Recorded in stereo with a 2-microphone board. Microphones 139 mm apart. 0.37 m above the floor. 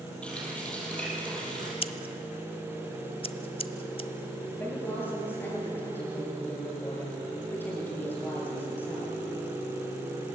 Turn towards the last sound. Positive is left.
turn(degrees=15)  # may be behind; listen again after turning